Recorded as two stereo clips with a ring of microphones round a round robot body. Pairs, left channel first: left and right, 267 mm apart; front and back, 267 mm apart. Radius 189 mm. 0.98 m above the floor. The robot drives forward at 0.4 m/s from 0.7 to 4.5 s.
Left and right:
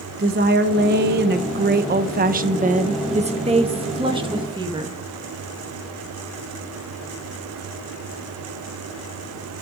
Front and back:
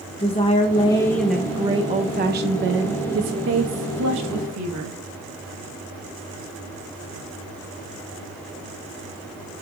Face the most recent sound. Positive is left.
turn(degrees=-165)